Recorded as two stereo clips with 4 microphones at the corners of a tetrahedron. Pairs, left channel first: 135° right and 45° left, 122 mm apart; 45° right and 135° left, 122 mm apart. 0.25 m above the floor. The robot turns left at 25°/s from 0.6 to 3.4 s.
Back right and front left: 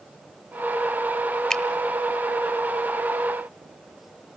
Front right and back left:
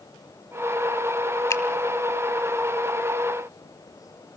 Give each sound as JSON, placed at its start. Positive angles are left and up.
{"t": 1.5, "sound": "a finger snap", "azimuth_deg": -55, "distance_m": 1.2}